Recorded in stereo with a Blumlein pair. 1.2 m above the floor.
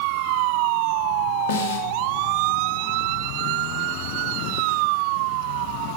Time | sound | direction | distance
1.5 | a snare drum | 55° left | 2.5 m